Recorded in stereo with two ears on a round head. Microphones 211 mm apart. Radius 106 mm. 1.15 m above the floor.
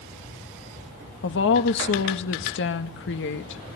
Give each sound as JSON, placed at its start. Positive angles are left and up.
{"t": 1.2, "sound": "a woman speaking", "side_deg": 55, "distance_m": 1.9}